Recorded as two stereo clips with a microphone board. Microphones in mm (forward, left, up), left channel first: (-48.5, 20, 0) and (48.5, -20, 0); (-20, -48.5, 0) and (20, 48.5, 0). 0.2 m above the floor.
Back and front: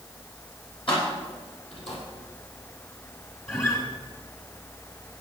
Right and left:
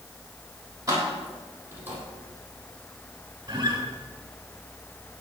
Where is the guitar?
105° left, 2 m.